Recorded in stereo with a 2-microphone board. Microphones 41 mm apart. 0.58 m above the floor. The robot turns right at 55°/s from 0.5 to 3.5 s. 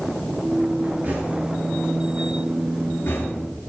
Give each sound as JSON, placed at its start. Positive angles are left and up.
{"t": 1.0, "sound": "knocking", "side_deg": -50, "distance_m": 8.0}